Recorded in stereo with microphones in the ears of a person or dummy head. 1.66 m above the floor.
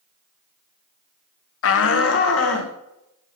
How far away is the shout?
About 0.8 m.